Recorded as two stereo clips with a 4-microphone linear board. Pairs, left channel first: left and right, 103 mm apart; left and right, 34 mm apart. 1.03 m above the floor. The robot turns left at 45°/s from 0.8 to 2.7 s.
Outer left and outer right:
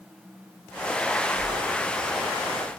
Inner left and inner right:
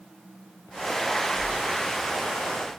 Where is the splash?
70° left (ahead or behind), 3.5 m; by 2.3 s 60° left (ahead or behind), 3.5 m.